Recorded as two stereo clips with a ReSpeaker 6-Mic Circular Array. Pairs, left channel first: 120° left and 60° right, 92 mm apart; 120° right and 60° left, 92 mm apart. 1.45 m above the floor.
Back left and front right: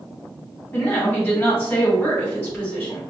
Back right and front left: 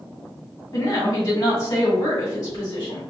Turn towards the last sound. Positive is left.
turn(degrees=-165)